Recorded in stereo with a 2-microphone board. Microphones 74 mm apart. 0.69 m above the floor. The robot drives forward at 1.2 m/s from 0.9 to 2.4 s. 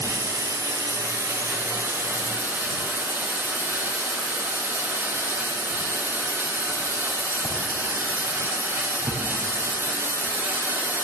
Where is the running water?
50° right (ahead or behind), 3 m; by 11.0 s 30° right (ahead or behind), 4.5 m.